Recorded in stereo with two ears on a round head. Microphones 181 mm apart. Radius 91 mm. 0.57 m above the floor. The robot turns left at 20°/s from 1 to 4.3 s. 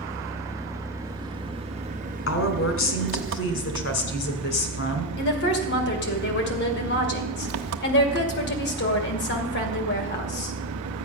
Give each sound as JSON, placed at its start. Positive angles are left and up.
{"t": 0.0, "sound": "an engine running", "azimuth_deg": -15, "distance_m": 0.9}
{"t": 2.3, "sound": "a woman speaking", "azimuth_deg": 100, "distance_m": 2.5}
{"t": 5.2, "sound": "a woman speaking", "side_deg": 55, "distance_m": 2.5}